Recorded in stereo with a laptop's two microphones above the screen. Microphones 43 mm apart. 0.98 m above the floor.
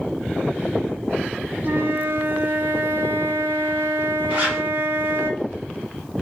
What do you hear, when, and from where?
1.6 s a flute: 45° right (ahead or behind), 0.5 m
4.3 s a zipper: 30° right (ahead or behind), 1.3 m